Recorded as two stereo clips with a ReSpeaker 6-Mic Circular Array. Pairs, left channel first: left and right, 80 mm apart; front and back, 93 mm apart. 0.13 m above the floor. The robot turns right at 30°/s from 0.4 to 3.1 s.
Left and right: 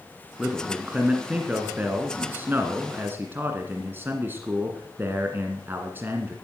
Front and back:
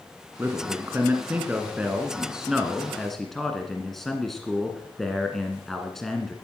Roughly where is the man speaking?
Behind.